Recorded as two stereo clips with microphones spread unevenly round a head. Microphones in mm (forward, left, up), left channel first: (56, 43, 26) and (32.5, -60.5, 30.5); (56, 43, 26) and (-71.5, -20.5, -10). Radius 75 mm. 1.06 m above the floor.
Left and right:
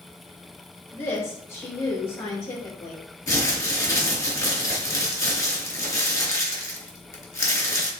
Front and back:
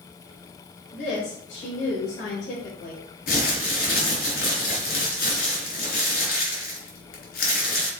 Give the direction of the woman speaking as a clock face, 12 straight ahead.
11 o'clock.